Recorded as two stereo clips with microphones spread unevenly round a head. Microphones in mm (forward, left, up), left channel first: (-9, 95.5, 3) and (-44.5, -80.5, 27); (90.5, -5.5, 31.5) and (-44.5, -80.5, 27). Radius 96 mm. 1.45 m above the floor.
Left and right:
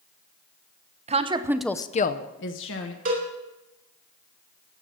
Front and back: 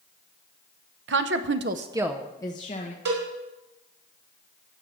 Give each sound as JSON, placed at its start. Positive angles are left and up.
{"t": 1.1, "sound": "a woman speaking", "azimuth_deg": -155, "distance_m": 1.0}
{"t": 3.0, "sound": "a cowbell", "azimuth_deg": -145, "distance_m": 4.0}